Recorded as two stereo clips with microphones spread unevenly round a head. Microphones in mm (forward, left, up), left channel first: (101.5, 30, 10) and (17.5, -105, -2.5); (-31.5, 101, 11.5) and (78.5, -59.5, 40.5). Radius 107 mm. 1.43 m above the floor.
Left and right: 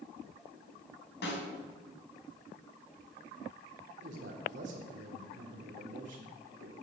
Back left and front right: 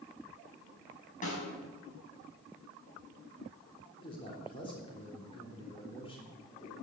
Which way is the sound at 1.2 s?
70° left.